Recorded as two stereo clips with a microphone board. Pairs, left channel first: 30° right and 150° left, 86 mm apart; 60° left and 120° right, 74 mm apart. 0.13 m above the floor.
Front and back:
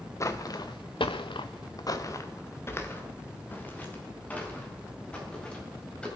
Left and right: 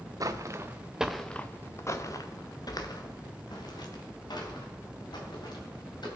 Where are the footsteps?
85° right, 1.3 m; by 6.1 s 45° left, 6 m.